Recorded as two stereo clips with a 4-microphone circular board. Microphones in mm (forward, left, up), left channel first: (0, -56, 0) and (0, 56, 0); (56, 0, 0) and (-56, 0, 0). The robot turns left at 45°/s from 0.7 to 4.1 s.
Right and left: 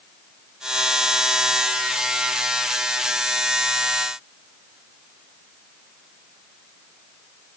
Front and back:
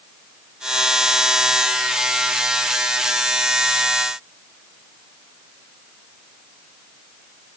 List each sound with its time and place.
Only background noise.